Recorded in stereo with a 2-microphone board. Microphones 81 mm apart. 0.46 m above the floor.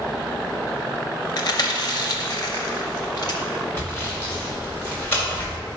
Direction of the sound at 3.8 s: 25° left (ahead or behind).